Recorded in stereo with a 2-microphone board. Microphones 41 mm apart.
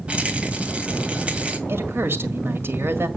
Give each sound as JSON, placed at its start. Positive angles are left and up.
{"t": 0.1, "sound": "a rattle", "side_deg": -30, "distance_m": 1.7}
{"t": 1.7, "sound": "a woman speaking", "side_deg": -65, "distance_m": 1.9}